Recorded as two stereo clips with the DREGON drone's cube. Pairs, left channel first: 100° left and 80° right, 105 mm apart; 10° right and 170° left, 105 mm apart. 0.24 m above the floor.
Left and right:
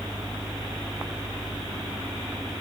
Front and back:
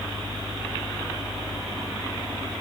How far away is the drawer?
I don't hear a drawer.